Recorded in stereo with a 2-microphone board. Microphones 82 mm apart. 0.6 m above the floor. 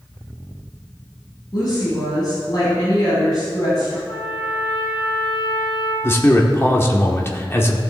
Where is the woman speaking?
50° left (ahead or behind), 4 m.